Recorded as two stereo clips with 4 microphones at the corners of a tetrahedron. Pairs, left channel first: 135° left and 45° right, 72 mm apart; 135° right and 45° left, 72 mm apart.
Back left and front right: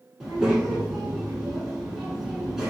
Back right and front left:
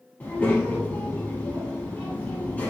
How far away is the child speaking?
About 0.6 m.